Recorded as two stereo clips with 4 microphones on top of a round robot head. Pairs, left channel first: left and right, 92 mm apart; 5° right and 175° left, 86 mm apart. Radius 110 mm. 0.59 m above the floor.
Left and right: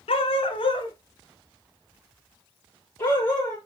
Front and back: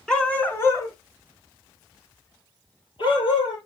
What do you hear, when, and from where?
0.1 s a dog barking: 75° left, 1.7 m; by 3.6 s 15° left, 4.5 m